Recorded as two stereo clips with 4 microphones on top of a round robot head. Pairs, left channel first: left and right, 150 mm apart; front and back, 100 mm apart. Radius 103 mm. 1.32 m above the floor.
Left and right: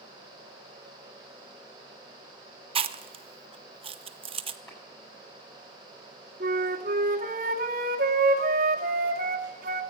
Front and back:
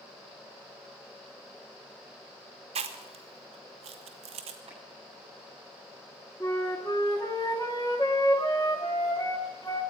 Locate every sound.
2.8 s chewing: 145° right, 0.7 m
4.7 s a clap: 160° left, 9 m
6.4 s a flute: 65° right, 0.9 m